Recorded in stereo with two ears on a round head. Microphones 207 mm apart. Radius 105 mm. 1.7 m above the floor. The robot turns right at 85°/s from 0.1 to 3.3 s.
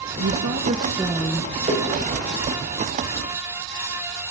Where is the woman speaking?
85° right, 1.7 m; by 1.5 s 30° left, 1.7 m.